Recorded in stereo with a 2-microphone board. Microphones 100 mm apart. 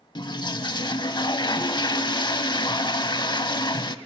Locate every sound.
0.1 s a toilet flushing: 50° left (ahead or behind), 0.6 m